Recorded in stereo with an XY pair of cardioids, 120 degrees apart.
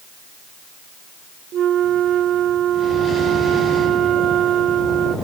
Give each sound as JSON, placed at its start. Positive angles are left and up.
{"t": 1.5, "sound": "a flute", "azimuth_deg": -60, "distance_m": 0.7}